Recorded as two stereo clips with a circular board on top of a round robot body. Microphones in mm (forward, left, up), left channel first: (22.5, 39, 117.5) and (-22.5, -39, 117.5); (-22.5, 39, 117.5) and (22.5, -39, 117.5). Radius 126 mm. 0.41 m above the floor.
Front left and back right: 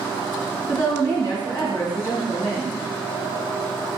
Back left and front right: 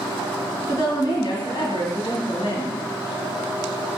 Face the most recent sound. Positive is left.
turn(degrees=120)